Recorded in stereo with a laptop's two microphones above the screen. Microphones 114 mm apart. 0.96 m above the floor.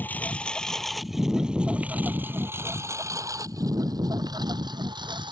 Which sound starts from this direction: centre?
A lawn mower, at 0.0 s.